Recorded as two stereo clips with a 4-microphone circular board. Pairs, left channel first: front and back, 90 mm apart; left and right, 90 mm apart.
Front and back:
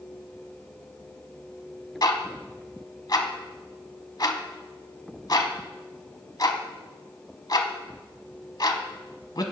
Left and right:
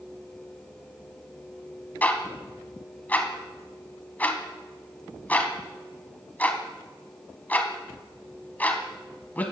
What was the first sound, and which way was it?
Ticking, 25° left.